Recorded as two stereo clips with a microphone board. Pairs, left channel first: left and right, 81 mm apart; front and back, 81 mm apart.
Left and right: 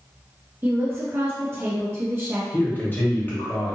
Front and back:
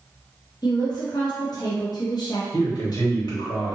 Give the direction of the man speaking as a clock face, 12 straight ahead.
11 o'clock.